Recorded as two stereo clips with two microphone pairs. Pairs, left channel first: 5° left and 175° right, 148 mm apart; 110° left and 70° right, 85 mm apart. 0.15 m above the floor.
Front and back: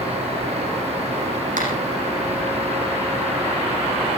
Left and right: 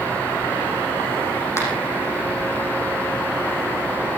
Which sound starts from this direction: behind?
A finger snap, at 1.6 s.